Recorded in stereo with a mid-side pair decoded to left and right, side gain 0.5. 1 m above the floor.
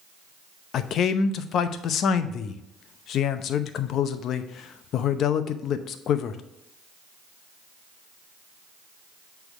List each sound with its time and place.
0.7 s a man speaking: 60° left, 0.7 m